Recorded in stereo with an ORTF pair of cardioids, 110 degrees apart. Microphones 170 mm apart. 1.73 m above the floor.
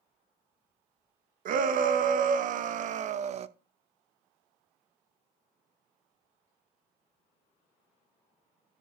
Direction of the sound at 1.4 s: 55° right.